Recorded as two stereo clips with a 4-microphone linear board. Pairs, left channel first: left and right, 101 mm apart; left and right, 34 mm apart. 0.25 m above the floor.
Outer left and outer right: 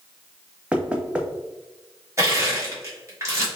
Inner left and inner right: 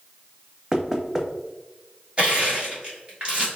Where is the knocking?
10° right (ahead or behind), 0.7 m.